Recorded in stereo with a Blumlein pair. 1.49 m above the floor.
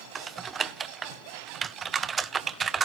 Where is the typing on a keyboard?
20° right, 0.6 m.